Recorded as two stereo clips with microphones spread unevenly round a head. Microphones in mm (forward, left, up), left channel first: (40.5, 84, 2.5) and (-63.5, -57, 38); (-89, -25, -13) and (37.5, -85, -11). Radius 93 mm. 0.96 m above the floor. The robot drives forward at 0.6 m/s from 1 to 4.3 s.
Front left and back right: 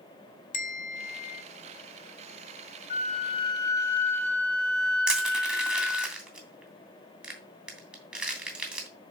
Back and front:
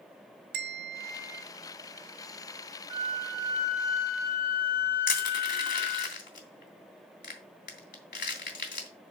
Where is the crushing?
150° left, 2.5 m.